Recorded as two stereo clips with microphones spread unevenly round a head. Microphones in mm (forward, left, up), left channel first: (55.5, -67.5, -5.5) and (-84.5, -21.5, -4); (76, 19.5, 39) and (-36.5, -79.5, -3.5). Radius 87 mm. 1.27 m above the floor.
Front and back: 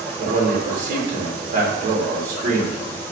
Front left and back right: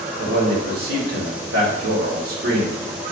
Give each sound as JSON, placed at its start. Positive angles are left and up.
{"t": 0.2, "sound": "a man speaking", "azimuth_deg": -165, "distance_m": 2.5}